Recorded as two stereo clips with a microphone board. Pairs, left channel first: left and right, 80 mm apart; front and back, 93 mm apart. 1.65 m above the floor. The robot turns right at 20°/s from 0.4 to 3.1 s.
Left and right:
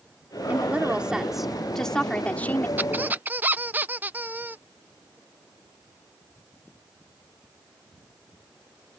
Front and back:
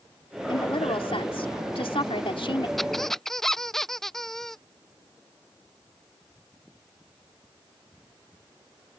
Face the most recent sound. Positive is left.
turn(degrees=-80)